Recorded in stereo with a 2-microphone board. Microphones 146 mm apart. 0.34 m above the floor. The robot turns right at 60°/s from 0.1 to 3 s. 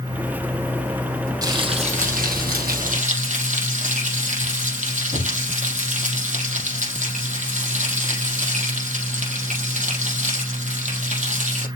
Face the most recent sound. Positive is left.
turn(degrees=-60)